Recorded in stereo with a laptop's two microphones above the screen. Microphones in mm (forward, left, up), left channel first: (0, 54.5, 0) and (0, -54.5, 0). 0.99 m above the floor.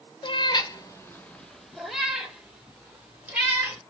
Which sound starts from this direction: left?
A cat meowing, at 0.2 s.